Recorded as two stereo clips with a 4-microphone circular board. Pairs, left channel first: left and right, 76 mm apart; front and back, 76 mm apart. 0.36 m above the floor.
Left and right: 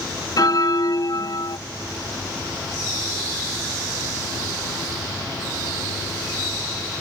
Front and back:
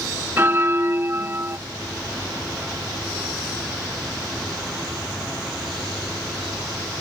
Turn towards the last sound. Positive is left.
turn(degrees=120)